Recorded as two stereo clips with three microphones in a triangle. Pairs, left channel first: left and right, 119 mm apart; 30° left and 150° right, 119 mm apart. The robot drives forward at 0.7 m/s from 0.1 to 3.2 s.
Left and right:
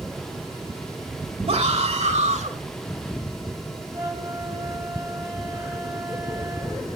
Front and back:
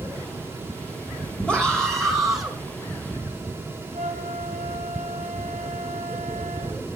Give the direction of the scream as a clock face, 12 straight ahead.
2 o'clock.